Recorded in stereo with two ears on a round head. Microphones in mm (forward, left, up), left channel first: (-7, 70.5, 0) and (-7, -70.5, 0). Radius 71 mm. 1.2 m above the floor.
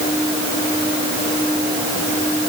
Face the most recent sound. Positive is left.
No sound to turn to.